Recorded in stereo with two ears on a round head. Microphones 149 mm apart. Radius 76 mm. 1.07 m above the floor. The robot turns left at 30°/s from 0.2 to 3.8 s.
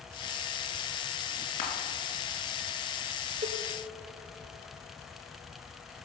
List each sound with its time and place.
1.6 s crushing: 50° left (ahead or behind), 2.5 m; by 1.7 s 45° left (ahead or behind), 2.5 m
3.4 s a cowbell: 30° right (ahead or behind), 0.7 m; by 3.6 s 35° right (ahead or behind), 0.7 m